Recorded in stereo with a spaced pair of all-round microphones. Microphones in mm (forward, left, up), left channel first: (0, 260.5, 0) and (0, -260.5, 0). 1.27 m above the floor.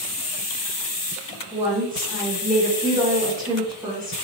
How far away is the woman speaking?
About 1.1 m.